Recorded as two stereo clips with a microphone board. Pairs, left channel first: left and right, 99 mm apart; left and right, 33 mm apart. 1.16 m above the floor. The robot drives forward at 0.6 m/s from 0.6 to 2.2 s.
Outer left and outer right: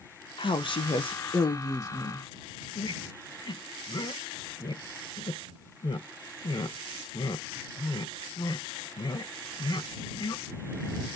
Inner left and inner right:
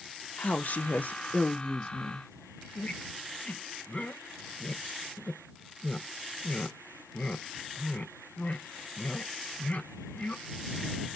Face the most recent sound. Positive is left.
turn(degrees=45)  # may be behind; listen again after turning